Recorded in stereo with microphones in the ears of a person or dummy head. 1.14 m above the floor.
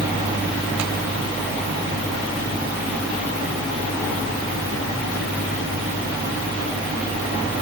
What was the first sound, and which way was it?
Only background noise.